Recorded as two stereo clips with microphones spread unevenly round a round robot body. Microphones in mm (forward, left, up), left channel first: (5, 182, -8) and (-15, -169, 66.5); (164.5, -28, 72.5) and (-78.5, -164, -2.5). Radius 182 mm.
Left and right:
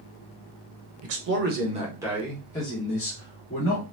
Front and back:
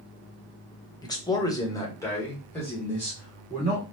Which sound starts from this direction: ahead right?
A man speaking, at 1.0 s.